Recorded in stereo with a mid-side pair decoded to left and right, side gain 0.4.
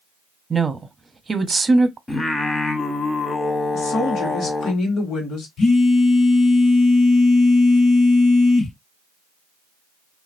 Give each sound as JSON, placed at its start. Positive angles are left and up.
{"t": 0.5, "sound": "a woman speaking", "azimuth_deg": -30, "distance_m": 0.8}
{"t": 2.1, "sound": "singing", "azimuth_deg": 30, "distance_m": 0.8}
{"t": 3.7, "sound": "a woman speaking", "azimuth_deg": 70, "distance_m": 1.2}
{"t": 5.6, "sound": "a phone buzzing", "azimuth_deg": 65, "distance_m": 1.2}